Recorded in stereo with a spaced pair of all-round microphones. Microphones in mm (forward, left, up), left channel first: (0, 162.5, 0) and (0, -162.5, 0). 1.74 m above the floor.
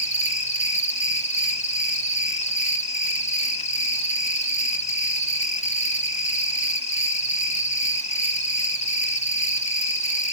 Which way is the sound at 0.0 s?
20° left (ahead or behind).